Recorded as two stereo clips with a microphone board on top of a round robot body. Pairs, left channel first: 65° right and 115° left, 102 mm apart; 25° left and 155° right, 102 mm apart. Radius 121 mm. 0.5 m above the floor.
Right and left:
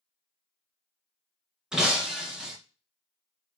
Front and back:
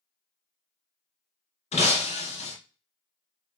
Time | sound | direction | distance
1.7 | breaking glass | 30° left | 2.5 m